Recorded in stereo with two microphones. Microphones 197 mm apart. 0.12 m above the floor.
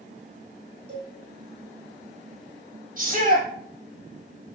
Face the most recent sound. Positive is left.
turn(degrees=-45)  # may be behind; listen again after turning